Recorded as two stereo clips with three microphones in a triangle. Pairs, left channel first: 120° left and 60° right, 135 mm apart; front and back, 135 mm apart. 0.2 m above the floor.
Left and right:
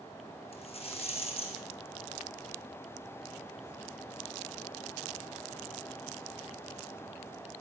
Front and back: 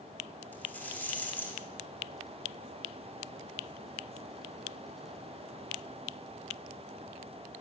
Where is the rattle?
75° left, 3 m.